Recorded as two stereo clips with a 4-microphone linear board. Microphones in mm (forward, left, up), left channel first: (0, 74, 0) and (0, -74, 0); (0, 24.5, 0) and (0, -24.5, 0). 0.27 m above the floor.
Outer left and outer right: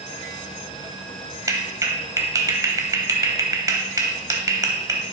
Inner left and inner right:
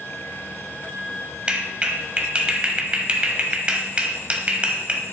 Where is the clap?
25° right (ahead or behind), 1.0 m.